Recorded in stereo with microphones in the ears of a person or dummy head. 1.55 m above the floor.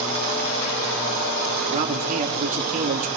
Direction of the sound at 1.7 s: 40° right (ahead or behind).